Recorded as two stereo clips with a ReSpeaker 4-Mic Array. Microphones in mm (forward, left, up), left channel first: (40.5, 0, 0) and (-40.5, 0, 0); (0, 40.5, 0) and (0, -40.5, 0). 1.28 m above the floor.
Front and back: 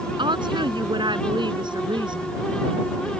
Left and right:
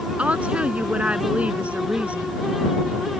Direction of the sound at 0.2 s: 165° right.